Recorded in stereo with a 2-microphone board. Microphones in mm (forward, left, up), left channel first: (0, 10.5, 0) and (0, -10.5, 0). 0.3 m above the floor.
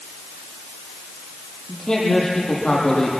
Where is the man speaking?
35° left (ahead or behind), 9 m.